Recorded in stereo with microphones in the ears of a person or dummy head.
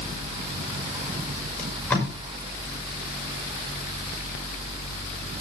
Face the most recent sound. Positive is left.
turn(degrees=10)  # may be behind; listen again after turning